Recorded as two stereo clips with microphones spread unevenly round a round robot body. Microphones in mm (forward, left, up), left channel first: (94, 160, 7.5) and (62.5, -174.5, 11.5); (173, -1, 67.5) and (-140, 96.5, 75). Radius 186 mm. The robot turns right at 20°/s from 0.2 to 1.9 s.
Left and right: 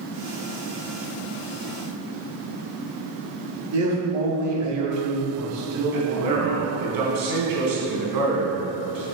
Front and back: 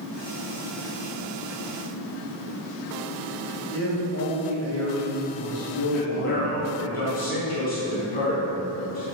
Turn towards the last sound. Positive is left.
turn(degrees=-80)